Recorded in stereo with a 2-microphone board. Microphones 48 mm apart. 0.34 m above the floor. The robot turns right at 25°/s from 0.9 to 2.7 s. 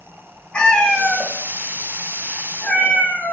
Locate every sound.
0.5 s a cat meowing: 35° left, 0.8 m; by 3.3 s 80° left, 0.8 m